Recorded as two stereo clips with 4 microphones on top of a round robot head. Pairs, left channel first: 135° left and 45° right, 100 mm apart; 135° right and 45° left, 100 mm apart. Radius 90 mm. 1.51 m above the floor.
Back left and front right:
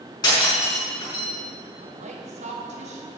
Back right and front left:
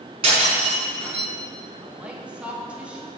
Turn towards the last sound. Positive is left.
turn(degrees=-35)